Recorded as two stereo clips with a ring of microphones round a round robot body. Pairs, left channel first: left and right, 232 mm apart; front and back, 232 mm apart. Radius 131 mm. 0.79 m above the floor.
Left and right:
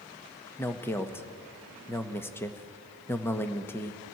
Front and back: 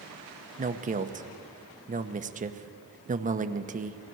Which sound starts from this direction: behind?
A man speaking, at 0.6 s.